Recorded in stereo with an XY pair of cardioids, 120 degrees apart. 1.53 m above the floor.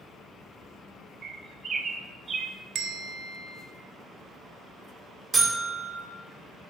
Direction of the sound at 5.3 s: 20° right.